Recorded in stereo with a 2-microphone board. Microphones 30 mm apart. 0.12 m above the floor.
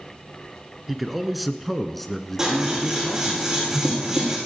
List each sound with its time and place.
0.9 s a man speaking: 5° right (ahead or behind), 1.3 m; by 3.4 s 15° left (ahead or behind), 1.3 m
2.4 s scissors: 15° right (ahead or behind), 7 m